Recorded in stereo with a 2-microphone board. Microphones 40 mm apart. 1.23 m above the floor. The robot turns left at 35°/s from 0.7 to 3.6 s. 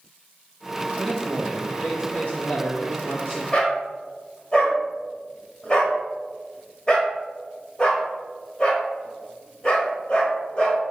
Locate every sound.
1.0 s a man speaking: straight behind, 1.6 m; by 3.4 s 95° left, 1.6 m
3.5 s a dog barking: 25° left (ahead or behind), 1.3 m